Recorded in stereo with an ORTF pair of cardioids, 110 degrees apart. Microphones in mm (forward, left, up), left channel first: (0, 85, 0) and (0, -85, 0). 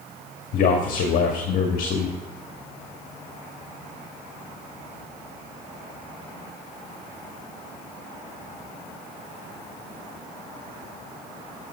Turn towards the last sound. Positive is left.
turn(degrees=60)